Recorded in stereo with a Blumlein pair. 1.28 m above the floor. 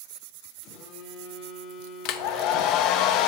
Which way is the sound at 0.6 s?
35° left.